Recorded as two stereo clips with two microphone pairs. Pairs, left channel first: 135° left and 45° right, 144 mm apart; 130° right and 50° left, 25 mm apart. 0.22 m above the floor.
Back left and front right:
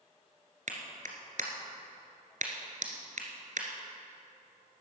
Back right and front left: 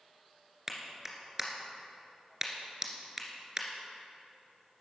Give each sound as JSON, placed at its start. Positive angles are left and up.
{"t": 0.7, "sound": "a clap", "azimuth_deg": -20, "distance_m": 2.0}